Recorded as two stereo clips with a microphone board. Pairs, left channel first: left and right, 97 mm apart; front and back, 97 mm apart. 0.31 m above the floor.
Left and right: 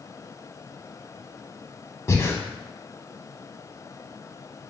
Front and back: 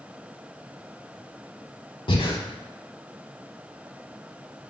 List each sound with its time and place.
2.1 s breathing: 30° left, 0.6 m